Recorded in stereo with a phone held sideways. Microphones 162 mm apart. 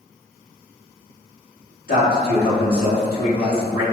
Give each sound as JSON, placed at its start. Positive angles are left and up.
{"t": 1.9, "sound": "a man speaking", "side_deg": 65, "distance_m": 1.2}